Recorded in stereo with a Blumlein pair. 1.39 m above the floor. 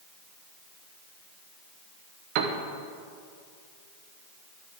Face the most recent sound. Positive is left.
turn(degrees=-45)